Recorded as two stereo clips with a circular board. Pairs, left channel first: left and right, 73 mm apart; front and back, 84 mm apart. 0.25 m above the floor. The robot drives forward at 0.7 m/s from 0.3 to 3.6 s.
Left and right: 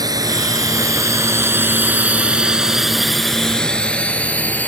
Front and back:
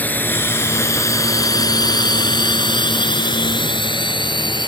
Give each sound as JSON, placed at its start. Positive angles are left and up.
{"t": 0.0, "sound": "a drone", "azimuth_deg": -65}